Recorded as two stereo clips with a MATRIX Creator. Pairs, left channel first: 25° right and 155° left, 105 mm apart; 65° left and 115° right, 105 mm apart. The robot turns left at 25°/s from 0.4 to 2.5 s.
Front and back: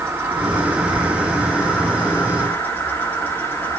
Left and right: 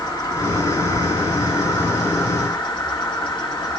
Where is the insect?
95° left, 2 m; by 3.8 s 45° left, 2 m.